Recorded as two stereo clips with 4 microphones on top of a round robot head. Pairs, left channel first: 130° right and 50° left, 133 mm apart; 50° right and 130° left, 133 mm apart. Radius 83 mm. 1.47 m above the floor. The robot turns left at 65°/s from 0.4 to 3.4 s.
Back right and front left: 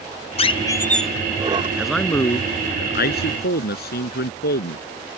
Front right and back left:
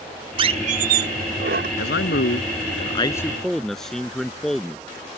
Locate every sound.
0.4 s a squeak: 175° right; by 1.7 s 100° left
1.8 s a man speaking: 30° right; by 5.2 s 135° right